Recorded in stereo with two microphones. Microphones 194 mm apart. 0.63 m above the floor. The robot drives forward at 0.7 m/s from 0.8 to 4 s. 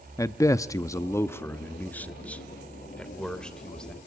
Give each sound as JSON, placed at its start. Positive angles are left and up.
{"t": 0.2, "sound": "a man speaking", "side_deg": 15, "distance_m": 0.6}